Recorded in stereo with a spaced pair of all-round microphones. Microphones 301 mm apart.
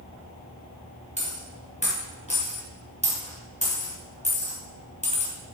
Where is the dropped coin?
25° left (ahead or behind), 3 m.